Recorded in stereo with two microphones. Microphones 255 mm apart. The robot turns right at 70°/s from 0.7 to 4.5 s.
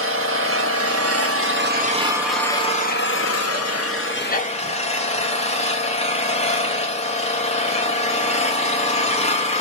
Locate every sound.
0.0 s an engine running: 115° right, 0.7 m; by 9.6 s 150° left, 0.7 m